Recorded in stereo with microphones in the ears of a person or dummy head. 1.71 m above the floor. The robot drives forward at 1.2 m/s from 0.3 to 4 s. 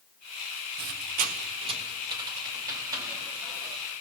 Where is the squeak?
45° right (ahead or behind), 0.9 m; by 3.8 s 10° right (ahead or behind), 4 m.